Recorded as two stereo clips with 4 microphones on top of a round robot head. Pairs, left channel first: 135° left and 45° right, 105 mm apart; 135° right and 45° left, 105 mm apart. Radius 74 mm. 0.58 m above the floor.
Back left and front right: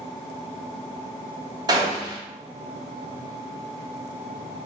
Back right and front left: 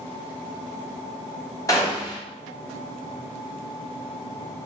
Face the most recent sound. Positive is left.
turn(degrees=-85)